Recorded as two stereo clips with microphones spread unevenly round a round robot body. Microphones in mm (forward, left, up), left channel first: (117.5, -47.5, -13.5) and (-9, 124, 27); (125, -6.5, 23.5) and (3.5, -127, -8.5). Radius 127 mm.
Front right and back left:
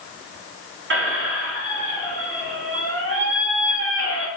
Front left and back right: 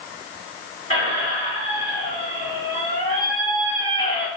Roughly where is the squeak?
Left.